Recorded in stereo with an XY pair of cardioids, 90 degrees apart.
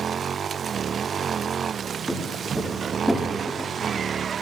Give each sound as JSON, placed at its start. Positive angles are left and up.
{"t": 2.1, "sound": "footsteps", "azimuth_deg": 0, "distance_m": 9.0}